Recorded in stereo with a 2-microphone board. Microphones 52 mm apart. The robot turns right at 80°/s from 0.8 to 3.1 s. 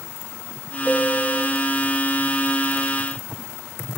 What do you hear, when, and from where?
0.8 s a piano: 155° left, 1.9 m; by 1.5 s 155° right, 1.9 m